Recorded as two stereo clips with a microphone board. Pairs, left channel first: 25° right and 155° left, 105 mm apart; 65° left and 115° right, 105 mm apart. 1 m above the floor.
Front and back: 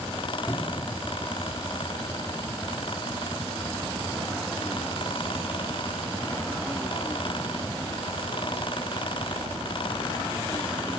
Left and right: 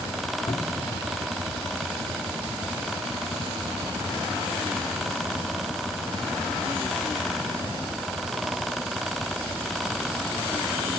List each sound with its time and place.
0.5 s a cupboard door: 45° left, 1.6 m